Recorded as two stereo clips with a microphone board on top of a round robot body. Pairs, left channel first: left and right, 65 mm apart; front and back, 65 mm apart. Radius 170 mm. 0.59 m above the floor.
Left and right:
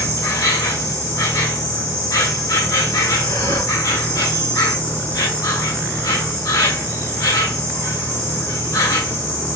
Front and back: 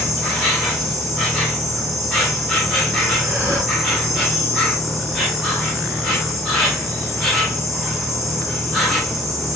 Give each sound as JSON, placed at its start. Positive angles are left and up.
{"t": 0.0, "sound": "an insect", "azimuth_deg": 95, "distance_m": 2.5}
{"t": 3.2, "sound": "breathing", "azimuth_deg": 120, "distance_m": 1.7}